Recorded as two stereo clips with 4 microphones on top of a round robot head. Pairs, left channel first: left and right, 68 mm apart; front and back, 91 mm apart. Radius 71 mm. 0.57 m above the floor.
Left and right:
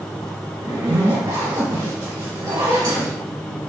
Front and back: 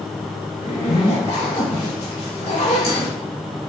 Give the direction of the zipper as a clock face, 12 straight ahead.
1 o'clock.